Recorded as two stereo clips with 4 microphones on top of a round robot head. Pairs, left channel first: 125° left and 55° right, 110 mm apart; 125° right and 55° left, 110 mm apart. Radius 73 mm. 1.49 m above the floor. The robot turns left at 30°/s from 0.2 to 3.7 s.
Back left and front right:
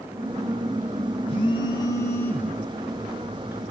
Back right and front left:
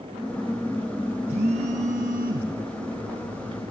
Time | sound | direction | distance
1.3 | a phone buzzing | 85° left | 6.5 m